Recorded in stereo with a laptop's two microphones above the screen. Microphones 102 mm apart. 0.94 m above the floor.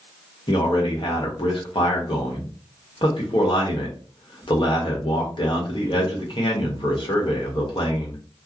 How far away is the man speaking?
About 1.3 m.